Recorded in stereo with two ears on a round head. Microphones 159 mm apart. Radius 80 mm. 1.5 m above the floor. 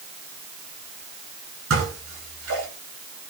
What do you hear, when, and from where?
1.7 s dishes clattering: 85° right, 9 m